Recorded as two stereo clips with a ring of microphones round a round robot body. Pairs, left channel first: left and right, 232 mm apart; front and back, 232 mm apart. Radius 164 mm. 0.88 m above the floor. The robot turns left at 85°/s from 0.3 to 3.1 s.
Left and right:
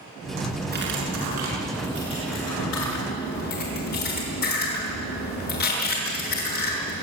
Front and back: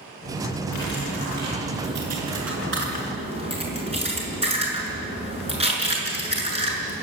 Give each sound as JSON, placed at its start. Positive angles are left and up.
{"t": 0.7, "sound": "cutlery clinking", "azimuth_deg": -40, "distance_m": 7.0}